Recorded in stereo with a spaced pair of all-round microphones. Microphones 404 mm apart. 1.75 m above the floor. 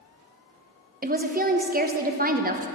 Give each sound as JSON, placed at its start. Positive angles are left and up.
{"t": 1.0, "sound": "a woman speaking", "side_deg": -20, "distance_m": 0.6}